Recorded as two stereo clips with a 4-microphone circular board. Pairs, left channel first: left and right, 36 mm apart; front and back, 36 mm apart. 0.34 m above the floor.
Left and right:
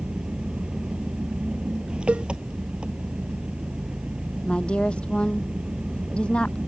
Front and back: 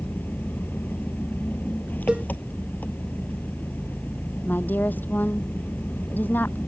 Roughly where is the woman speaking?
Ahead left.